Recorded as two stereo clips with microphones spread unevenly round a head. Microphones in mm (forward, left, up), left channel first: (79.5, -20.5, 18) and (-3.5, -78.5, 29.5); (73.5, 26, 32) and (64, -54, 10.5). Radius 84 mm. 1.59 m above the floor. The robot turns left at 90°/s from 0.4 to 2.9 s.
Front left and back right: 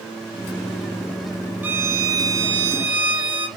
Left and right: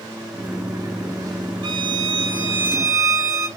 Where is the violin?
85° right, 0.5 m; by 3.5 s 160° left, 0.5 m.